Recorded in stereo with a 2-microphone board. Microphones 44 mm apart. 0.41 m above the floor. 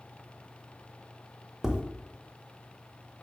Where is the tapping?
15° right (ahead or behind), 0.6 m.